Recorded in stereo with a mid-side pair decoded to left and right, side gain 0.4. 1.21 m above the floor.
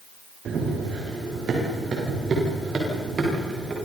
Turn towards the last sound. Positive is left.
turn(degrees=-50)